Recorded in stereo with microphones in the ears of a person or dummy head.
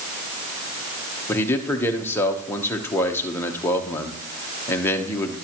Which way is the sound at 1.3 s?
15° left (ahead or behind).